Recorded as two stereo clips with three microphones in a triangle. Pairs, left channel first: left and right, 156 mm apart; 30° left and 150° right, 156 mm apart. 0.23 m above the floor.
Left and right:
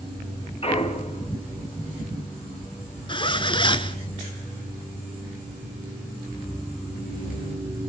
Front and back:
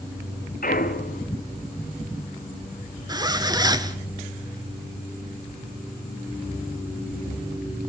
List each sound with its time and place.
0.6 s a clunk: 45° left, 2.5 m
3.1 s a zipper: 150° left, 1.2 m